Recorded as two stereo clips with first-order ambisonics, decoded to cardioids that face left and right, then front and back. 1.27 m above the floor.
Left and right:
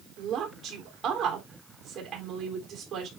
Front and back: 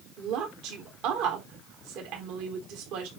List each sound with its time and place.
0.2 s a woman speaking: 155° right, 3.5 m